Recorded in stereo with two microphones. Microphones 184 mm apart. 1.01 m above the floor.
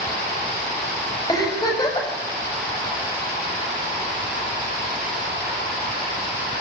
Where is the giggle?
20° left (ahead or behind), 6.5 m.